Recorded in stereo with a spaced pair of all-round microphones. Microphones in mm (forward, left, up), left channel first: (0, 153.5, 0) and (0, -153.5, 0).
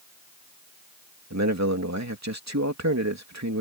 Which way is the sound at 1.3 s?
60° right (ahead or behind).